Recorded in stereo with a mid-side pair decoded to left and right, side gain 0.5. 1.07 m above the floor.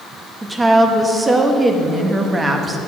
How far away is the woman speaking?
About 1.2 m.